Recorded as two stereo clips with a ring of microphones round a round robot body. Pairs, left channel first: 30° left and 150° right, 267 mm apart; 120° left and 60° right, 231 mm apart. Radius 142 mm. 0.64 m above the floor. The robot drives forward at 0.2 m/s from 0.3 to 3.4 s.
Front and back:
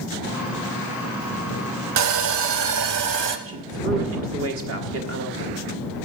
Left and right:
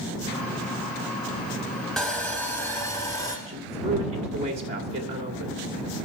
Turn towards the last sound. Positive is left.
turn(degrees=-120)